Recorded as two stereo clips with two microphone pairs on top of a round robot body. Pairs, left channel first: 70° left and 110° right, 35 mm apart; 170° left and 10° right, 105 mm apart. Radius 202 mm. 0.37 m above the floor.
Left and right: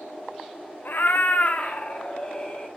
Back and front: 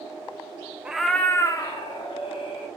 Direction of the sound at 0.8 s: 65° left.